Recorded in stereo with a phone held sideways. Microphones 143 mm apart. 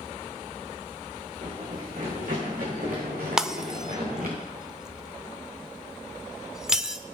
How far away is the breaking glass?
About 0.8 m.